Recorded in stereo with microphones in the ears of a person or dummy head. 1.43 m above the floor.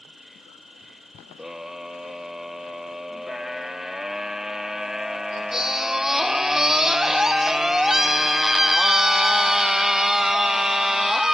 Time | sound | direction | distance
0.0 | an insect | centre (ahead or behind) | ?
1.4 | a scream | 5° right (ahead or behind) | ?